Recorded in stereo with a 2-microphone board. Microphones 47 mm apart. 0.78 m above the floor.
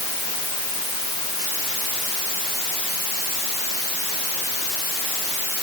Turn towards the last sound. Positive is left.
No sound to turn to.